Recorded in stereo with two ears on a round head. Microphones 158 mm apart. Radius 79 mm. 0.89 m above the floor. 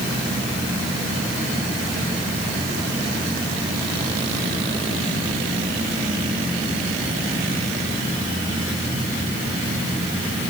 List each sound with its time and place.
Only background noise.